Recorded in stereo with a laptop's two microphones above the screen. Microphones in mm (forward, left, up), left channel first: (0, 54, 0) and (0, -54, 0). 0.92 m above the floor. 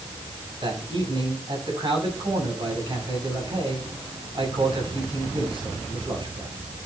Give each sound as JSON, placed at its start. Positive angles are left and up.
{"t": 0.6, "sound": "a man speaking", "side_deg": -50, "distance_m": 7.0}